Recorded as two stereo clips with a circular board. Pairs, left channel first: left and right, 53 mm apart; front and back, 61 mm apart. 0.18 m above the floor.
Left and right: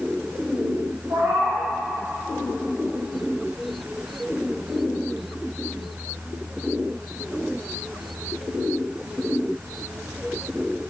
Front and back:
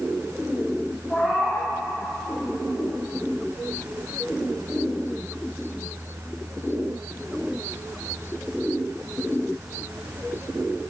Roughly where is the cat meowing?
Right.